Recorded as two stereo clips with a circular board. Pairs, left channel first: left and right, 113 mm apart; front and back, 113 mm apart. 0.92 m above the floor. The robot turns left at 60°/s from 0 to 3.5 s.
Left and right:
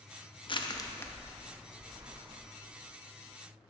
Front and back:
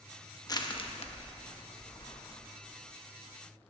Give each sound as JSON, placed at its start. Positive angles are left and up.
{"t": 0.5, "sound": "crushing", "azimuth_deg": 55, "distance_m": 0.8}